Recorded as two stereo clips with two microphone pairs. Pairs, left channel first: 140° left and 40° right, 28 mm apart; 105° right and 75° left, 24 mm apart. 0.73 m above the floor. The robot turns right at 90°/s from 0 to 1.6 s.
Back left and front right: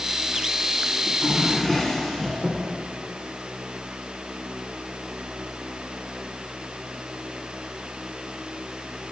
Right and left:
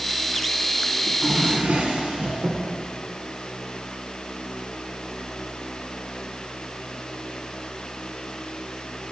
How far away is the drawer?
About 1.9 m.